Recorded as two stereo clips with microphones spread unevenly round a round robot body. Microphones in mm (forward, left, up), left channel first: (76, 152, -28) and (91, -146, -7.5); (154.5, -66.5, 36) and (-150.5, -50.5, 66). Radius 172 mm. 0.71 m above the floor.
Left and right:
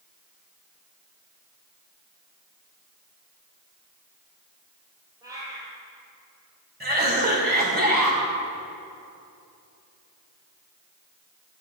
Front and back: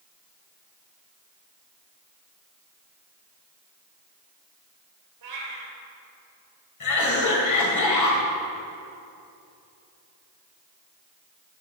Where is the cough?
25° right, 3.5 m.